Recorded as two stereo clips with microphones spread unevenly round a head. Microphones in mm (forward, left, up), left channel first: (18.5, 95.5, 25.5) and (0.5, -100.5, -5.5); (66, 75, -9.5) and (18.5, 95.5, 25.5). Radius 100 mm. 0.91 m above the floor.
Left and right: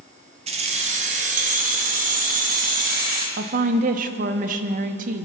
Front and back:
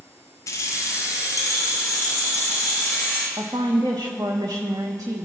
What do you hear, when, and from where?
0.5 s keys jangling: 35° right, 1.0 m; by 3.3 s 50° right, 2.5 m
3.4 s a woman speaking: 140° right, 0.9 m